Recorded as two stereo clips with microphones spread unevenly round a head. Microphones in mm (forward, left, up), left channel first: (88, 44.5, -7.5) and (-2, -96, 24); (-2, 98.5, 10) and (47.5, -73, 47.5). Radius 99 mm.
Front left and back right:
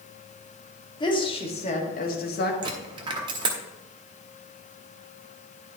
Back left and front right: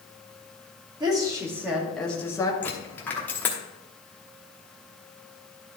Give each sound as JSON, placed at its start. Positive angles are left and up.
{"t": 1.0, "sound": "a woman speaking", "azimuth_deg": -5, "distance_m": 2.5}
{"t": 2.6, "sound": "a dropped coin", "azimuth_deg": -160, "distance_m": 1.0}